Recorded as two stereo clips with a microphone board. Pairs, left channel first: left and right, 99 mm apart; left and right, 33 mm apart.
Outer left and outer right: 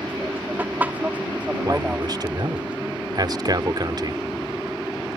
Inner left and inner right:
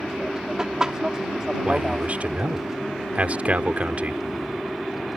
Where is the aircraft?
20° right (ahead or behind); by 5.2 s 5° right (ahead or behind).